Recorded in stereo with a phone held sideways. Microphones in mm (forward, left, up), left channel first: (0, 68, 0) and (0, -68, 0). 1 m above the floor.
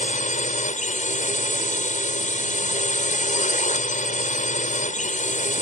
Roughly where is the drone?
Left.